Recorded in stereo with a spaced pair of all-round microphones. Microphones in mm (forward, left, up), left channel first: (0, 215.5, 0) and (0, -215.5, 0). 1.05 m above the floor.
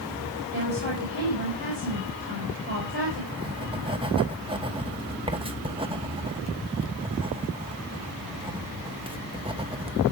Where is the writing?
10° right (ahead or behind), 0.9 m.